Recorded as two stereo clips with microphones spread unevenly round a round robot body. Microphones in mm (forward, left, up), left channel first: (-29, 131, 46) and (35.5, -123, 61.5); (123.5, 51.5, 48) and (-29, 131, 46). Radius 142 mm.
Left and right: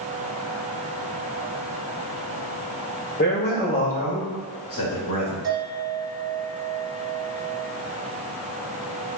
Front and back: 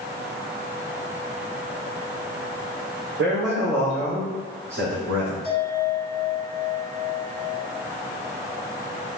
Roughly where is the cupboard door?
I don't hear a cupboard door.